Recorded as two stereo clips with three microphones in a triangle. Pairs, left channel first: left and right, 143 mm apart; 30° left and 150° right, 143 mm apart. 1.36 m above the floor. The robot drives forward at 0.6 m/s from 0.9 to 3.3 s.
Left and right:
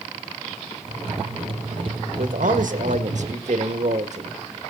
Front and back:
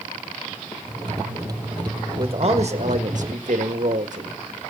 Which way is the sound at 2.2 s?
100° right.